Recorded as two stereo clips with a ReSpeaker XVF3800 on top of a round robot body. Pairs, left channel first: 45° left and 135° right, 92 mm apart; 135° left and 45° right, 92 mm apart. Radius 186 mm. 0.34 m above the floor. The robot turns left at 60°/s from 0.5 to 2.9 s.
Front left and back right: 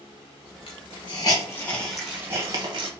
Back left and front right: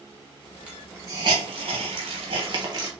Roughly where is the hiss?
Ahead left.